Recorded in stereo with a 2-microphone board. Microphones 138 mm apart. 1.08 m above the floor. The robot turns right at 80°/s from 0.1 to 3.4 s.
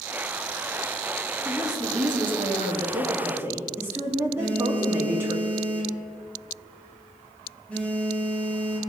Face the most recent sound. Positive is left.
turn(degrees=10)  # may be behind; listen again after turning